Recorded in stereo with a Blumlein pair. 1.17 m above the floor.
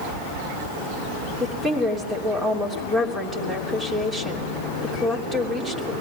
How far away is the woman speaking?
About 3 m.